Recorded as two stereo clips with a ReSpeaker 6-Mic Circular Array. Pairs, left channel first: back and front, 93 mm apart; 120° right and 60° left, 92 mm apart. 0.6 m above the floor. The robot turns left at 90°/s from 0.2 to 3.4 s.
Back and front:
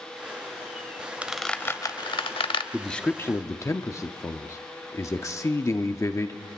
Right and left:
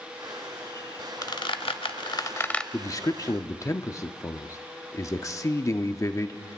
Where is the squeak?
75° right, 0.7 m; by 2.6 s 160° left, 0.7 m.